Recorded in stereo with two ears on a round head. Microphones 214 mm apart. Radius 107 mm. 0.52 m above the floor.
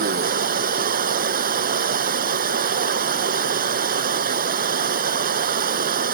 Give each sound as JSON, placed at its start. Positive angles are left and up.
{"t": 0.0, "sound": "running water", "side_deg": -40}